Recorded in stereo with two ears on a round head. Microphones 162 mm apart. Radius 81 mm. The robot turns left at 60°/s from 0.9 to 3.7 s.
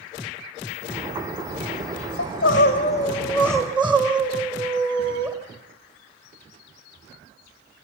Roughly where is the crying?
Ahead left.